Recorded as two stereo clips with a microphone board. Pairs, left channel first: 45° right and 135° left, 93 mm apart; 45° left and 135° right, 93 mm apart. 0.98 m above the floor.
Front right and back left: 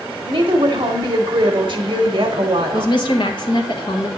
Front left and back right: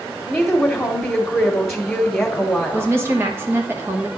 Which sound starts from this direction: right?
A woman speaking, at 2.7 s.